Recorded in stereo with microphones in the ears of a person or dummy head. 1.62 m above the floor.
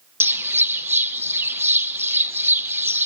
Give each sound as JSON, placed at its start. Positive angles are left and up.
{"t": 0.2, "sound": "a bird", "side_deg": -10, "distance_m": 0.6}